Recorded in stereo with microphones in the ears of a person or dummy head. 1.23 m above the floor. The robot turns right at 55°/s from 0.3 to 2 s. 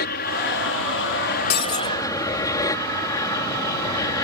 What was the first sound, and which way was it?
An aircraft, 60° left.